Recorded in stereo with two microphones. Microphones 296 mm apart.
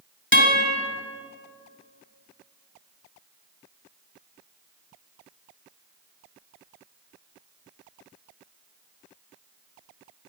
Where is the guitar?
40° left (ahead or behind), 1.0 m.